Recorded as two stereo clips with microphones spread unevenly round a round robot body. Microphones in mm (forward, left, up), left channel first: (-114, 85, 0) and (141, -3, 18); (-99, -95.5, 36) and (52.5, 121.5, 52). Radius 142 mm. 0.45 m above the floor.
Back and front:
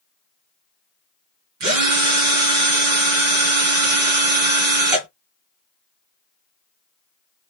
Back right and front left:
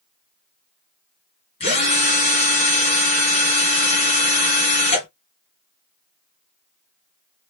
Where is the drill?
55° right, 2.5 m.